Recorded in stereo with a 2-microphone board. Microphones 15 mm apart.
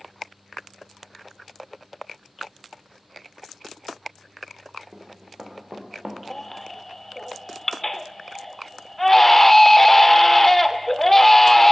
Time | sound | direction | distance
4.9 | running footsteps | 50° right (ahead or behind) | 3.5 m
6.3 | a baby crying | 20° left (ahead or behind) | 0.5 m